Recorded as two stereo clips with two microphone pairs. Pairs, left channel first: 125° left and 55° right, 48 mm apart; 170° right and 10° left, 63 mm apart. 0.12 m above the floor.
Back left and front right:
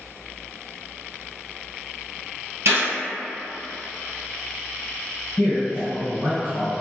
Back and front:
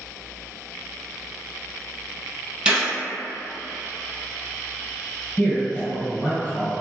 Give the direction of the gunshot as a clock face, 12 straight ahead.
2 o'clock.